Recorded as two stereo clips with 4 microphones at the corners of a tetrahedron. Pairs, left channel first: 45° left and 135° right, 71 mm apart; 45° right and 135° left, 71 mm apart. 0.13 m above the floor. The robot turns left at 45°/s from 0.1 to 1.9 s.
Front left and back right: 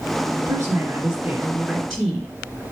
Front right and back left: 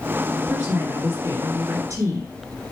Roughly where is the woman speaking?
Behind.